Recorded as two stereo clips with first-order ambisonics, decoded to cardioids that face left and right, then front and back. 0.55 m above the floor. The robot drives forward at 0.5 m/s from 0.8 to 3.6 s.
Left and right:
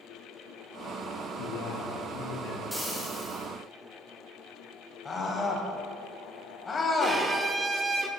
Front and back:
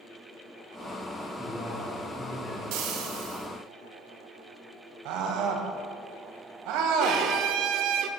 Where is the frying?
Straight behind, 3 m.